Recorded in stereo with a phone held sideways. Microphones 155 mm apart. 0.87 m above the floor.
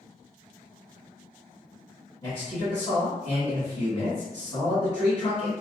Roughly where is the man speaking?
Left.